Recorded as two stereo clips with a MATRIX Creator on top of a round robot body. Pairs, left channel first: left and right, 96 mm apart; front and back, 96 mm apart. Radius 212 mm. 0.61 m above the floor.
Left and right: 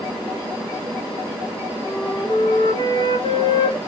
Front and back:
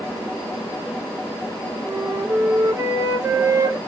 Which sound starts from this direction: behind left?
A flute, at 1.9 s.